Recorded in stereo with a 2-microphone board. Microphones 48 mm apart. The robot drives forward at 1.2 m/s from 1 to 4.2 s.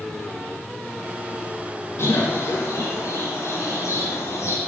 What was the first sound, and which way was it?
A bird, 65° left (ahead or behind).